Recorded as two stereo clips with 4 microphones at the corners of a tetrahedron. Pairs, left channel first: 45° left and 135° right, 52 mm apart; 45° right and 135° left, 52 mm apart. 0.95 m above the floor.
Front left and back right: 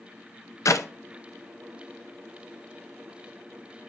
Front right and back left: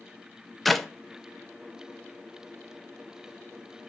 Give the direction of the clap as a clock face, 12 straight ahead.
11 o'clock.